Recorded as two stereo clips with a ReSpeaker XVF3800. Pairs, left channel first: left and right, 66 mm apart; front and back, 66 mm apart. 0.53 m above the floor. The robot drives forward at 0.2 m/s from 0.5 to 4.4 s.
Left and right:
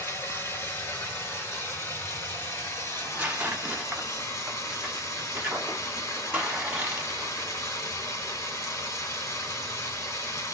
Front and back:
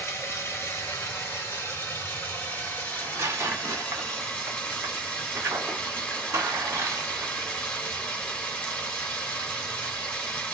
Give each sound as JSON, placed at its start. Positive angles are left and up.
{"t": 0.0, "sound": "running water", "azimuth_deg": 45, "distance_m": 1.7}
{"t": 2.9, "sound": "tearing paper", "azimuth_deg": -150, "distance_m": 1.2}